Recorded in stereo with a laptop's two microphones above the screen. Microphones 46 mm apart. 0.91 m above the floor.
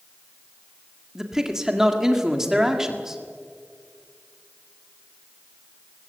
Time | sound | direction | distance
1.1 | a man speaking | 10° right (ahead or behind) | 1.8 m